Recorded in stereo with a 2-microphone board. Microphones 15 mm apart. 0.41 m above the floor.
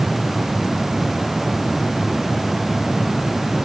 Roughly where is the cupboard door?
I don't hear a cupboard door.